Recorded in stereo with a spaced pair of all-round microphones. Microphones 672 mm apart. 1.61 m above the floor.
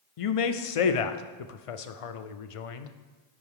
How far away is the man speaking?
About 0.5 m.